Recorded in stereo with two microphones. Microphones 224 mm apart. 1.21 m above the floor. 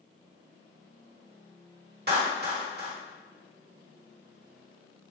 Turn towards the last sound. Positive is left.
turn(degrees=-45)  # may be behind; listen again after turning